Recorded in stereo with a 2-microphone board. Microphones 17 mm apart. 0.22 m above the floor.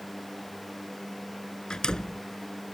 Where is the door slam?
60° left (ahead or behind).